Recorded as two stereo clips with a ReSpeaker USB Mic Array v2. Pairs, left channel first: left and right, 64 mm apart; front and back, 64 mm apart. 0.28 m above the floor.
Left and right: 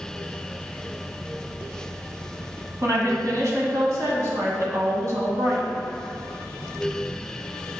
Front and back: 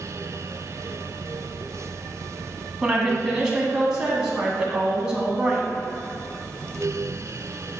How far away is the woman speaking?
About 2 m.